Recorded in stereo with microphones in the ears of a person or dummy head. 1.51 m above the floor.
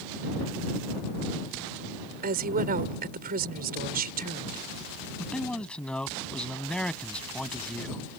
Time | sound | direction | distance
2.2 | a woman speaking | 45° right (ahead or behind) | ?
5.2 | a man speaking | 5° left (ahead or behind) | ?